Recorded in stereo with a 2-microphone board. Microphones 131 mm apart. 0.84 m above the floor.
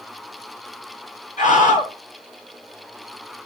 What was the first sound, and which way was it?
A scream, 70° left (ahead or behind).